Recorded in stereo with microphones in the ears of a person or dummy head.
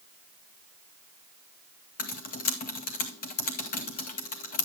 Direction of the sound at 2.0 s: 45° left (ahead or behind).